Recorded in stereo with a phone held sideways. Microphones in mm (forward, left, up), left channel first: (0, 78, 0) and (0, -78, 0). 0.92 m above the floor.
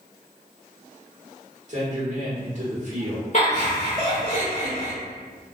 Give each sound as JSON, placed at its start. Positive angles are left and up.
{"t": 1.7, "sound": "a man speaking", "side_deg": -50, "distance_m": 1.4}
{"t": 3.3, "sound": "laughter", "side_deg": 45, "distance_m": 1.9}